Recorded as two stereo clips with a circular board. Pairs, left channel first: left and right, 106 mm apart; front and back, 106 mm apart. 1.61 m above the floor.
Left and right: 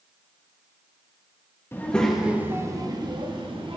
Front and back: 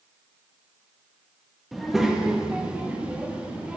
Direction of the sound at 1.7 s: 95° left.